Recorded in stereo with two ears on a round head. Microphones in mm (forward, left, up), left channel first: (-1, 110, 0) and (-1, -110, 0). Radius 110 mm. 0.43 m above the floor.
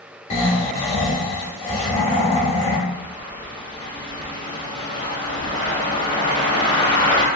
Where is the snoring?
25° left (ahead or behind), 0.6 m.